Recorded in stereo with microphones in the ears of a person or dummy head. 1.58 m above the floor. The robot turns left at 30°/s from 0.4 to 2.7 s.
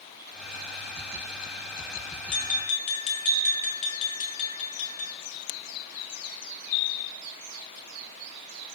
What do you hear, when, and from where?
2.3 s tapping: 45° left (ahead or behind), 1.7 m; by 5.1 s 40° left (ahead or behind), 1.7 m